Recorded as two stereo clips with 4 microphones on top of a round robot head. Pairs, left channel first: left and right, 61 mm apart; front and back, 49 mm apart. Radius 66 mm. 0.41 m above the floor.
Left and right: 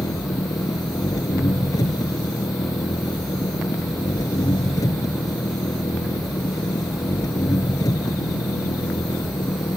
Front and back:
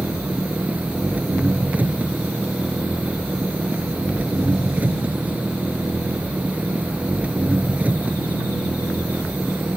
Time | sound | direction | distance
0.0 | an engine running | 125° left | ?